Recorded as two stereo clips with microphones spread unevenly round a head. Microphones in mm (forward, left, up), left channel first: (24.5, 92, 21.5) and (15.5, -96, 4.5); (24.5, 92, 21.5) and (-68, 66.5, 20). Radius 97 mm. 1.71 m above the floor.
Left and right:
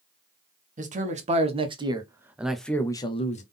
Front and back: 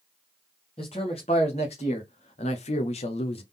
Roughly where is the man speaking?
Ahead right.